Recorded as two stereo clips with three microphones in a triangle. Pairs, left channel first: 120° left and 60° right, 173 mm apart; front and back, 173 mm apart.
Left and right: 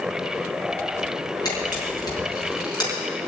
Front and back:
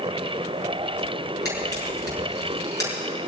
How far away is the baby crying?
I don't hear a baby crying.